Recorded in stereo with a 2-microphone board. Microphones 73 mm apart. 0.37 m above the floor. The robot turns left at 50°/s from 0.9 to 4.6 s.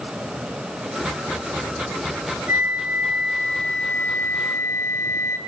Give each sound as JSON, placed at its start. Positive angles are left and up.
{"t": 2.5, "sound": "a flute", "azimuth_deg": -140, "distance_m": 2.0}